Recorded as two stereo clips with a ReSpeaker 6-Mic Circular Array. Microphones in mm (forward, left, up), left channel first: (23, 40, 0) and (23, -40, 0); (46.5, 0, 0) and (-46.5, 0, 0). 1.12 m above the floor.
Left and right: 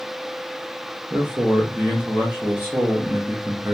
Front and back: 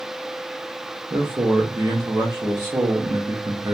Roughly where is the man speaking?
Behind right.